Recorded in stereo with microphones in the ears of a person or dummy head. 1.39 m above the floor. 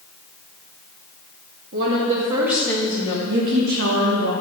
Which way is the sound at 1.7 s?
50° right (ahead or behind).